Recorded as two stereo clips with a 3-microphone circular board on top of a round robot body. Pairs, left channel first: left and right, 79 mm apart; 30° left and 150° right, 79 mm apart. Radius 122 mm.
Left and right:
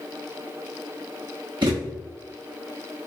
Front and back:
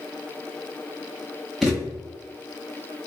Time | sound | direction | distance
1.6 | a thud | 65° right | 0.8 m